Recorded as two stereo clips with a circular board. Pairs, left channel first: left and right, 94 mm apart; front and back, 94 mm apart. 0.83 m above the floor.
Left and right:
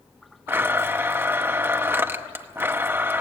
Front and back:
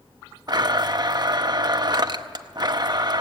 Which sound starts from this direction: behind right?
A blender, at 0.5 s.